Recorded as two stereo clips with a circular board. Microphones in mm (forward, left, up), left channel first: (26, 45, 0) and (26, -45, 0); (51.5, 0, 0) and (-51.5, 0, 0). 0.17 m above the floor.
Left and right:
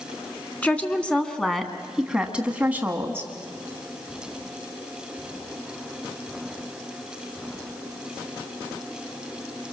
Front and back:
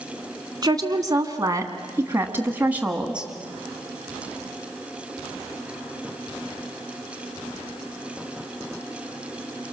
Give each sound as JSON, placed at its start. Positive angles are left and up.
{"t": 0.6, "sound": "a woman speaking", "azimuth_deg": 155, "distance_m": 1.9}